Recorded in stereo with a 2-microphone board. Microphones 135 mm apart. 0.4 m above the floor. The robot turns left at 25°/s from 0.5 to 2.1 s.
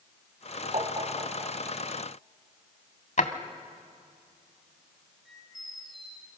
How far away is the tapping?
About 2.5 m.